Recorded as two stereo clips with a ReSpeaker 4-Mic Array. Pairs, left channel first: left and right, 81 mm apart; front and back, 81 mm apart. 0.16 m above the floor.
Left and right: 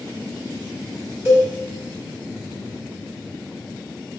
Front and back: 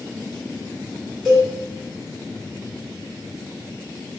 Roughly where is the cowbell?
Right.